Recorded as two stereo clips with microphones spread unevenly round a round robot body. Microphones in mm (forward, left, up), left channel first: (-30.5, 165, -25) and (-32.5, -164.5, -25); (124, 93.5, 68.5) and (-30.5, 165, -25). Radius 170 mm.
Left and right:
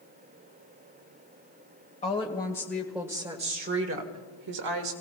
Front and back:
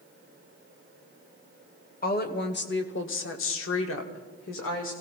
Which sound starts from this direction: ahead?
A woman speaking, at 2.0 s.